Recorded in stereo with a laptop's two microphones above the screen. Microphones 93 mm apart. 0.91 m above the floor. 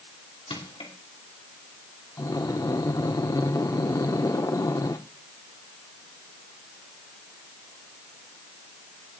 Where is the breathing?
40° left (ahead or behind), 0.5 m.